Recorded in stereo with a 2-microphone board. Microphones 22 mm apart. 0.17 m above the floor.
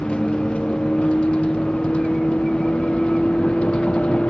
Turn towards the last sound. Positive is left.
turn(degrees=75)  # may be behind; listen again after turning